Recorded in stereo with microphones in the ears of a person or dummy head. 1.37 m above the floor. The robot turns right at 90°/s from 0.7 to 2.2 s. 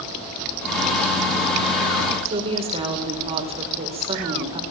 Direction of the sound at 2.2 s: 30° right (ahead or behind).